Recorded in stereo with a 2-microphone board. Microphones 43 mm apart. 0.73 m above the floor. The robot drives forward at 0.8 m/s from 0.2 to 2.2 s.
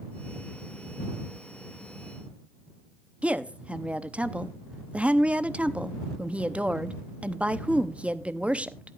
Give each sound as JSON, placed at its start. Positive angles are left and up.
{"t": 3.2, "sound": "a woman speaking", "side_deg": -30, "distance_m": 0.7}